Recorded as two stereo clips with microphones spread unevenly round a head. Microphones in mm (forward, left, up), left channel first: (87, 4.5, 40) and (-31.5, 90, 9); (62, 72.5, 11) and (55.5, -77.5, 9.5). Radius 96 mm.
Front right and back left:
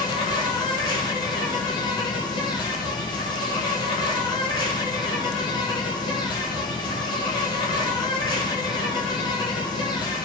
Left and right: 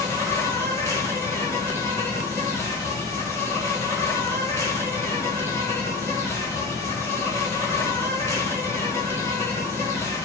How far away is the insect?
About 1.6 m.